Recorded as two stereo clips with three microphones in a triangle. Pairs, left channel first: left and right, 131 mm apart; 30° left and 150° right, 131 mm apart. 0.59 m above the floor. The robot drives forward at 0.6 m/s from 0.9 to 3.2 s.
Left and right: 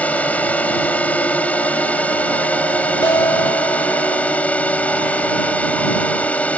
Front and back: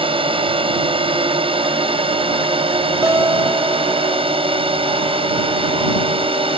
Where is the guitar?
145° left.